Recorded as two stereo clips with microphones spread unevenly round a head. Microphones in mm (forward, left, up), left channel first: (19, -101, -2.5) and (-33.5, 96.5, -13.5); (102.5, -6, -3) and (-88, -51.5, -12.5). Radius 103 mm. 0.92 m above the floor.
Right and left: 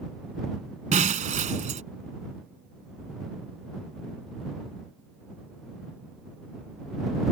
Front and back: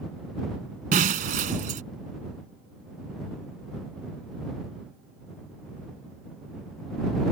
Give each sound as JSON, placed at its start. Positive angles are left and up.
{"t": 0.9, "sound": "breaking glass", "azimuth_deg": 155}